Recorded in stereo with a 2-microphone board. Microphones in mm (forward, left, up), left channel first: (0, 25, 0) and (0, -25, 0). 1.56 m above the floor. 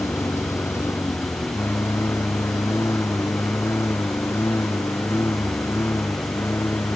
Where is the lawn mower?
60° left (ahead or behind); by 7.0 s 55° left (ahead or behind).